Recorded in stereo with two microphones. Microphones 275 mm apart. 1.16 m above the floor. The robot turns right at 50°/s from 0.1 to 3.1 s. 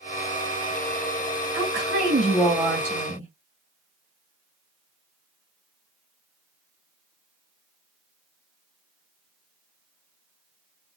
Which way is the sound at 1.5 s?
55° right.